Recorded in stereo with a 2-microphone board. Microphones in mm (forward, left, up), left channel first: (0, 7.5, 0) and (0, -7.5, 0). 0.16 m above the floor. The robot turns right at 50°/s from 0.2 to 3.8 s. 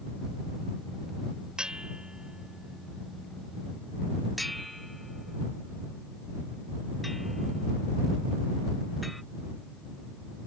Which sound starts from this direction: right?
A bell, at 1.6 s.